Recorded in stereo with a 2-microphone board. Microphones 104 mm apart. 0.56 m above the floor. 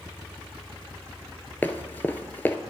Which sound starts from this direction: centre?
Running footsteps, at 1.6 s.